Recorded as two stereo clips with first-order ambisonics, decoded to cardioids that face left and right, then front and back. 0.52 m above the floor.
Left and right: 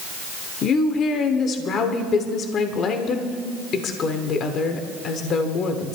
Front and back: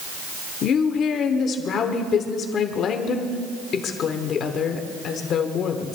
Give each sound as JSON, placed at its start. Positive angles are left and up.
{"t": 0.6, "sound": "a woman speaking", "azimuth_deg": 45, "distance_m": 1.3}